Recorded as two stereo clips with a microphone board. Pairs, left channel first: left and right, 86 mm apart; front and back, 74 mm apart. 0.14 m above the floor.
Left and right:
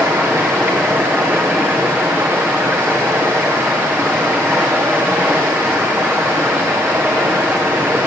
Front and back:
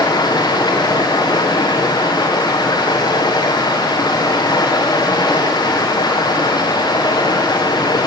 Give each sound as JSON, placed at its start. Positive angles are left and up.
{"t": 0.0, "sound": "running water", "azimuth_deg": -20, "distance_m": 4.0}